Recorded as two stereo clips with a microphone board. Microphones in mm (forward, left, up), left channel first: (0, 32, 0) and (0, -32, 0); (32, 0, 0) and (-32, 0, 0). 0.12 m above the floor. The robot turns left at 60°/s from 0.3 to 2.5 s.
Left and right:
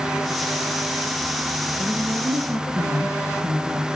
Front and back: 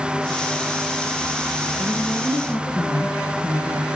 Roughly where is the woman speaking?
Ahead left.